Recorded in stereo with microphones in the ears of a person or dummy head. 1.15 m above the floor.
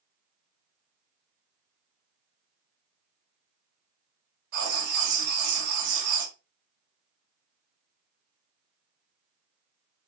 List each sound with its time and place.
4.5 s writing: 55° right (ahead or behind), 1.4 m